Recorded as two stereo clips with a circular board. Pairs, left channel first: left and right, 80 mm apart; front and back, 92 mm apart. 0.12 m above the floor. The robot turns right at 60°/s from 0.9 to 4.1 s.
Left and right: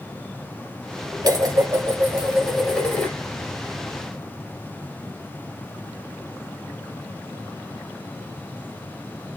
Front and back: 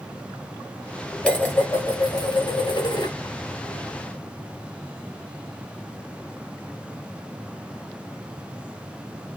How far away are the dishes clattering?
About 1.2 m.